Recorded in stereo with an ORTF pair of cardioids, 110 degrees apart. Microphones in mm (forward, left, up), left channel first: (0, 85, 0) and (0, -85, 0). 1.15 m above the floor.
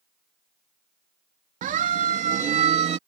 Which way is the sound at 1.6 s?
55° right.